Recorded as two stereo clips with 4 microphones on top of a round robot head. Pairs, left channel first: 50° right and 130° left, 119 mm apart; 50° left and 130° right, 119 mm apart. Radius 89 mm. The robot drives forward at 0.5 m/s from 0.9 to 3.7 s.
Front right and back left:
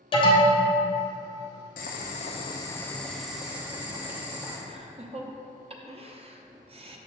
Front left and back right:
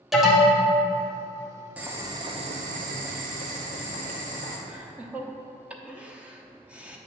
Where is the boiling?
55° right, 0.6 m; by 4.6 s 150° right, 0.8 m.